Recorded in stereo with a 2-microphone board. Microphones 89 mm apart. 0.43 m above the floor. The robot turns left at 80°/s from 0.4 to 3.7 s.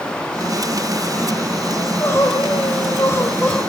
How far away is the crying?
About 1.4 m.